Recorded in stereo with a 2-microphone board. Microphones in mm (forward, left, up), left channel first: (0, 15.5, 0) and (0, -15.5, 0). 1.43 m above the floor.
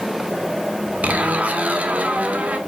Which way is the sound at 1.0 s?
55° right (ahead or behind).